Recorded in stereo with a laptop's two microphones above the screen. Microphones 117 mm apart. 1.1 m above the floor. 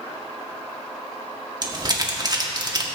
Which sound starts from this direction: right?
Crumpling, at 1.6 s.